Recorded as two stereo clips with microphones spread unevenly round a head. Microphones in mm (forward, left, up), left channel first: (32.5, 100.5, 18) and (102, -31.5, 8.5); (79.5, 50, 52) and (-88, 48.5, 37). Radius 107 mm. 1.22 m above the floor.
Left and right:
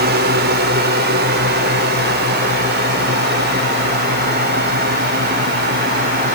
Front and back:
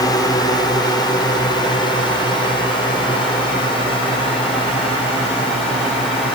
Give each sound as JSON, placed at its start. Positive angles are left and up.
{"t": 0.0, "sound": "a drone", "azimuth_deg": -70}